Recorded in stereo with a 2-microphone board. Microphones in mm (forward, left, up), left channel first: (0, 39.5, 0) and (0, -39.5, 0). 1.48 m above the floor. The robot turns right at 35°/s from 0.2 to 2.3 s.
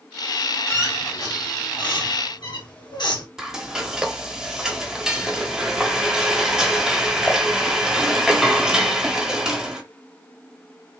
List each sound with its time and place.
0.7 s a squeak: 35° left (ahead or behind), 2.5 m; by 3.3 s 70° left (ahead or behind), 2.5 m
3.4 s frying: 5° right (ahead or behind), 1.3 m